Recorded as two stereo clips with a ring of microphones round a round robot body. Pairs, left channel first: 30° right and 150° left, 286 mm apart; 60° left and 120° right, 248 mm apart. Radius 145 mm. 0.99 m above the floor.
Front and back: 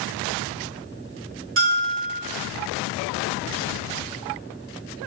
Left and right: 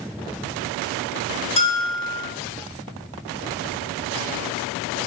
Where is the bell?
120° left, 0.8 m.